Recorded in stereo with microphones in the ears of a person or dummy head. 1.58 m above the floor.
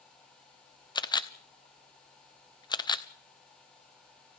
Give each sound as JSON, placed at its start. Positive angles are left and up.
{"t": 0.9, "sound": "a camera shutter", "side_deg": 20, "distance_m": 0.8}